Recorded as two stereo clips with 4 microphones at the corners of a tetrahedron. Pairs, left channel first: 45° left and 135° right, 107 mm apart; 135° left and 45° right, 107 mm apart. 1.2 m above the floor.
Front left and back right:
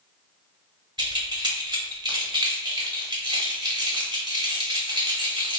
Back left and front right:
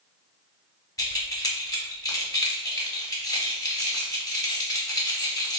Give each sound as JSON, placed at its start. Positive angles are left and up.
{"t": 1.0, "sound": "keys jangling", "azimuth_deg": -175, "distance_m": 0.9}